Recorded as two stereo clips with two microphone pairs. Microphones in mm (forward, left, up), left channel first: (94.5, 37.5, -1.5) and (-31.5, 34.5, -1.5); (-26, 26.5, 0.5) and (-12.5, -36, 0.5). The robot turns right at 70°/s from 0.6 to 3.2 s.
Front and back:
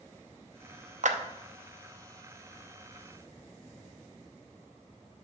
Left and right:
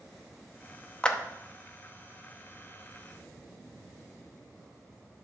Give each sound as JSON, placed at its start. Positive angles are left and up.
{"t": 1.0, "sound": "a clap", "azimuth_deg": 175, "distance_m": 0.7}